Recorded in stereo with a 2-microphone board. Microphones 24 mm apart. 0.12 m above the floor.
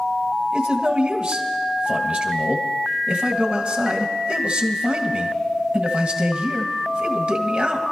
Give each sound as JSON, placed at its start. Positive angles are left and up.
{"t": 0.5, "sound": "a man speaking", "side_deg": -45, "distance_m": 1.7}